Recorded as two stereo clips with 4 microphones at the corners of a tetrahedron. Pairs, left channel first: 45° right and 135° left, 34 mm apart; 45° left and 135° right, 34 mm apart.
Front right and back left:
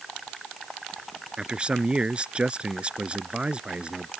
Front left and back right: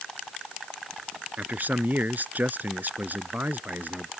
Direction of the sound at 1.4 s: 165° right.